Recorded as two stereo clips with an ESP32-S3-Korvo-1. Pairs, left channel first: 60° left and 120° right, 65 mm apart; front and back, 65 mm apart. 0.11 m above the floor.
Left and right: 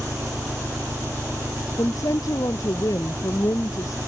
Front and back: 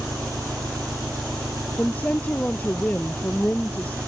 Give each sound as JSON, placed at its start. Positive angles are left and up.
{"t": 0.0, "sound": "an engine running", "azimuth_deg": -175}
{"t": 1.8, "sound": "a woman speaking", "azimuth_deg": 60}